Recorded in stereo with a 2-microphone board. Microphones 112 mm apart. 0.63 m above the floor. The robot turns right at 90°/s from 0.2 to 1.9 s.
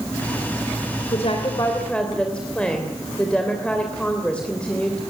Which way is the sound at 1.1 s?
100° left.